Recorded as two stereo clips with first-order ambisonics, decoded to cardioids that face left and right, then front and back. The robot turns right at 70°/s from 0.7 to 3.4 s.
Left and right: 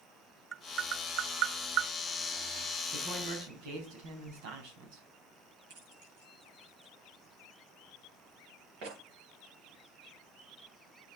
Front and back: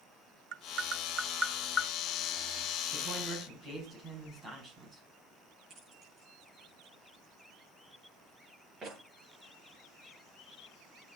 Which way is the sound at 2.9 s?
130° right.